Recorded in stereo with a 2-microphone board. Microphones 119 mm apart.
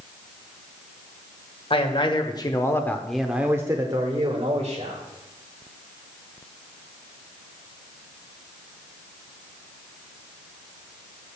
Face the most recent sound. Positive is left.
turn(degrees=-55)  # may be behind; listen again after turning